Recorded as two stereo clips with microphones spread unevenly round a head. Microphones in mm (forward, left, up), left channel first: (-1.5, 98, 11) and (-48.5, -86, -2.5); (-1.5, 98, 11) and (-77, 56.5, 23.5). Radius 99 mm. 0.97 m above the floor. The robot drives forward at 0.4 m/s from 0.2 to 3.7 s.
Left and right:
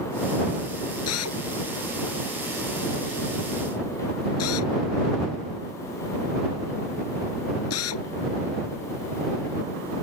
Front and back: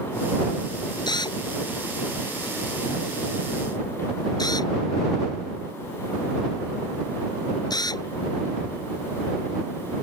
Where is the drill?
65° left; by 8.1 s 70° left.